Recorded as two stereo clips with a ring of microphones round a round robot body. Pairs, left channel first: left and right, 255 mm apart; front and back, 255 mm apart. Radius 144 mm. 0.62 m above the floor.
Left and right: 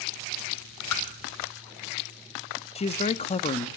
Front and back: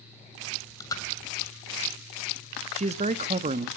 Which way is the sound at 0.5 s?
80° left.